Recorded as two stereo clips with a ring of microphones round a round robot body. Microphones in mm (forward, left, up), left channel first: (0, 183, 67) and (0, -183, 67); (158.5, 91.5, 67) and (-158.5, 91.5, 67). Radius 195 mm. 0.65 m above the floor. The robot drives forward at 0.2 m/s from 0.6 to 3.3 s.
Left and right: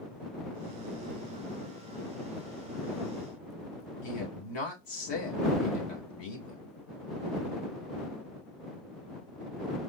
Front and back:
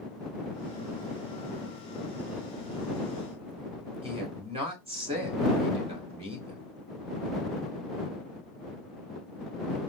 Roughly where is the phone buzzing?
I don't hear a phone buzzing.